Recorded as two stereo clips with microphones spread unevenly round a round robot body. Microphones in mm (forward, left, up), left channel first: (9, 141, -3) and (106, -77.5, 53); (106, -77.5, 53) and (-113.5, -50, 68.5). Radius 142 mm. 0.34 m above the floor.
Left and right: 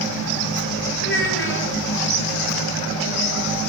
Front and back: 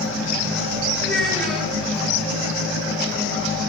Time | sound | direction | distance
1.0 | a child speaking | 80° left | 3.5 m